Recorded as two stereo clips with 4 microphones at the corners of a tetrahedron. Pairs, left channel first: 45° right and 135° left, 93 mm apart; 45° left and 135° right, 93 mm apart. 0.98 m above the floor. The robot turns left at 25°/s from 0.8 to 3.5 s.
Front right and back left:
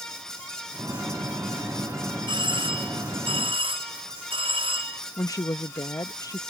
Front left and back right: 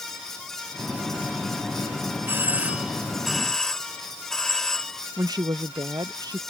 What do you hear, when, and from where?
2.3 s a doorbell: 160° left; by 5.0 s 130° left
5.2 s a woman speaking: 95° right